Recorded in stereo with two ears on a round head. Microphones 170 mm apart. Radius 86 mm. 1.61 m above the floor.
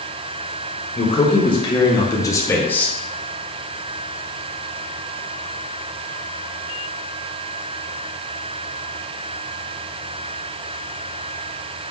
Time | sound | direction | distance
0.9 | a man speaking | 30° left (ahead or behind) | 2.5 m